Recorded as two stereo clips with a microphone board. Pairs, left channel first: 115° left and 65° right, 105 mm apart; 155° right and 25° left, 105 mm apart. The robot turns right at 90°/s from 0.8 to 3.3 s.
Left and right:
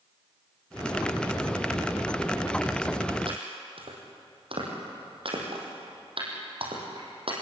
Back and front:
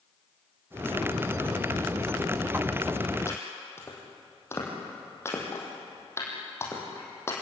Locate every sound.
3.3 s chopping: 95° right, 6 m